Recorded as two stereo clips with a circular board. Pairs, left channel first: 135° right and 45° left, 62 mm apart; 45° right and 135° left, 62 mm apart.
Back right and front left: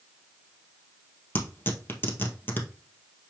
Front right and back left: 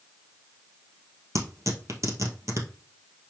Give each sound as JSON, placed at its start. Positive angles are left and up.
{"t": 1.4, "sound": "tearing paper", "azimuth_deg": 170, "distance_m": 2.0}